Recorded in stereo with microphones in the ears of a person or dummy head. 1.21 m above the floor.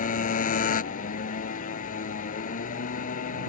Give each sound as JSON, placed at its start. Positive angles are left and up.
{"t": 0.0, "sound": "a motorcycle", "side_deg": 35}